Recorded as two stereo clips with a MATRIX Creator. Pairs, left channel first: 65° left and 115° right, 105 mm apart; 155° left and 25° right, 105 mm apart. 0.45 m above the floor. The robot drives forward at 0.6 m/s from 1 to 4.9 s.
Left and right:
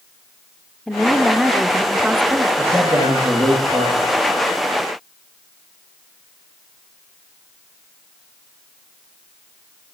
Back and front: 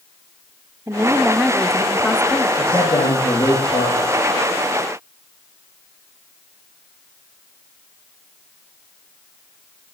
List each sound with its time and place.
0.9 s a woman speaking: 15° right, 0.9 m; by 2.5 s 165° right, 1.0 m
2.6 s a man speaking: straight behind, 7 m